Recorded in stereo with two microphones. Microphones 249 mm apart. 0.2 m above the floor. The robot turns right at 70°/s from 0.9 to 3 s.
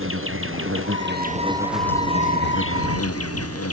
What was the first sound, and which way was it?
An insect, 60° right.